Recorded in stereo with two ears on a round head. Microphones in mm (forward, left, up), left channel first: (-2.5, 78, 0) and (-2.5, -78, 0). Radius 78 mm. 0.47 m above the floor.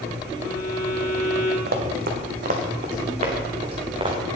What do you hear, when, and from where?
0.3 s a violin: 45° left (ahead or behind), 3.5 m
1.7 s running footsteps: 60° right (ahead or behind), 1.9 m; by 4.2 s 30° right (ahead or behind), 3 m